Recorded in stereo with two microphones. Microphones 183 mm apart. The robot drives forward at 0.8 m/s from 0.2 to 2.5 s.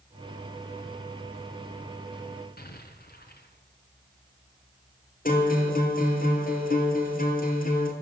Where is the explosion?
60° left (ahead or behind), 3.5 m.